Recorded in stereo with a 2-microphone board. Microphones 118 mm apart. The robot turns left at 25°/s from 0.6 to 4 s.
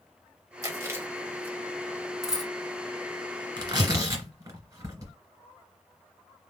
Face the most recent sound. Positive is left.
turn(degrees=-30)  # may be behind; listen again after turning